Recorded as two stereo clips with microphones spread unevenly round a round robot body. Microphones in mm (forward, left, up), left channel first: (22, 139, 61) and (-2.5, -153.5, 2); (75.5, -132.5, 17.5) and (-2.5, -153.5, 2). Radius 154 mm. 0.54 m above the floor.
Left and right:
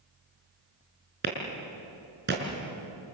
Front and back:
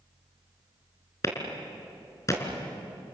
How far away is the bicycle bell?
No bicycle bell in this recording.